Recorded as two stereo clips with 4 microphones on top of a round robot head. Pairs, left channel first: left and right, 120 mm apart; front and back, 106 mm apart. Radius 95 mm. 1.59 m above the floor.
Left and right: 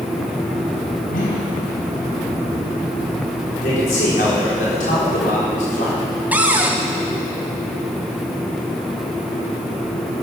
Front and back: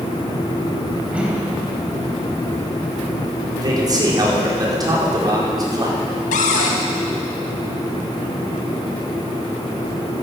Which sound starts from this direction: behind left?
A man speaking, at 3.6 s.